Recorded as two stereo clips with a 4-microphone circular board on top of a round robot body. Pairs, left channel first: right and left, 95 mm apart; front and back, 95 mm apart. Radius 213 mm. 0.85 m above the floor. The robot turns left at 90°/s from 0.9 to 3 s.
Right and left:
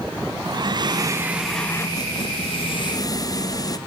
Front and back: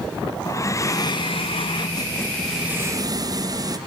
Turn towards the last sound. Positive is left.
turn(degrees=-135)